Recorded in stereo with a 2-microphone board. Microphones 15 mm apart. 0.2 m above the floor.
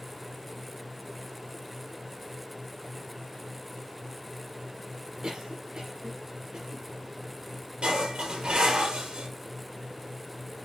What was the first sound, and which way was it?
A cough, 65° right (ahead or behind).